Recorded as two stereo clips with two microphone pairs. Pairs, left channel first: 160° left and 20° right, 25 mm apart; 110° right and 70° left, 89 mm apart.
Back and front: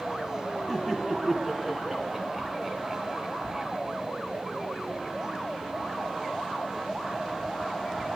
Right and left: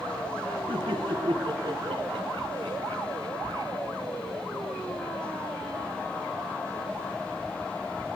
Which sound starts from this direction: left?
Laughter, at 0.7 s.